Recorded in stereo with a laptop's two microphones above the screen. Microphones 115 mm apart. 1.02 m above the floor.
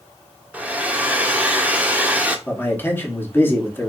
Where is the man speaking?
20° left (ahead or behind), 1.2 m.